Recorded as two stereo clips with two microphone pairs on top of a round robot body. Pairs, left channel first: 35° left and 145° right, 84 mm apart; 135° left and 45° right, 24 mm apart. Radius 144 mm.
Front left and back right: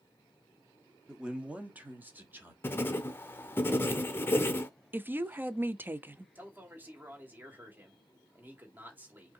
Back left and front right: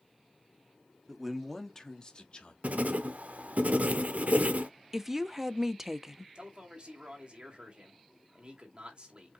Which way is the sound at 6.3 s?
85° right.